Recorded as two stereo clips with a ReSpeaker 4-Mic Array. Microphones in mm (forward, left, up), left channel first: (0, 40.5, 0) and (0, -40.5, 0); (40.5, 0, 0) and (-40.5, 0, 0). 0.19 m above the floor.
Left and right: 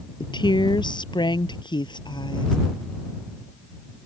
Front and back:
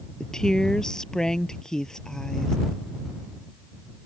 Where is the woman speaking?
85° left.